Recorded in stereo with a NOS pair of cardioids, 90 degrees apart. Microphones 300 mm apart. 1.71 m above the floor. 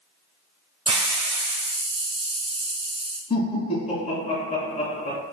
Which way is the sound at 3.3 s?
25° left.